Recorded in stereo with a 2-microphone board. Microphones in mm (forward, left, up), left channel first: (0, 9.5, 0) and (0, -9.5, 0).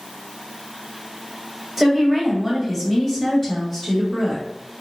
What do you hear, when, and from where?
1.8 s a woman speaking: 5° right (ahead or behind), 1.2 m; by 4.4 s 20° left (ahead or behind), 1.5 m